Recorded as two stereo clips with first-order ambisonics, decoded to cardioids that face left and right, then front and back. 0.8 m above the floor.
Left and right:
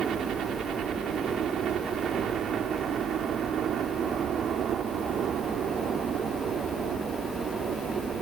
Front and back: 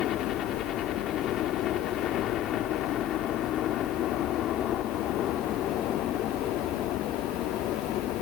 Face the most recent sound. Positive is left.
turn(degrees=-40)